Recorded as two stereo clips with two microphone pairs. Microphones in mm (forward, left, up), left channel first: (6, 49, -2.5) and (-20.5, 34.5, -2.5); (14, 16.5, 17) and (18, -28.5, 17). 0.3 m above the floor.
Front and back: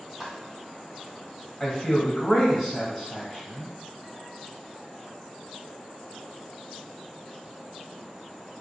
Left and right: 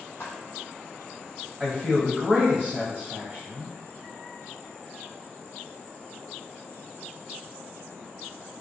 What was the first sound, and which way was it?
Footsteps, 125° left.